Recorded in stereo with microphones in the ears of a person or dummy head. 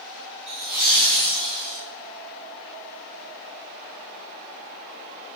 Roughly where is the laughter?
Centre.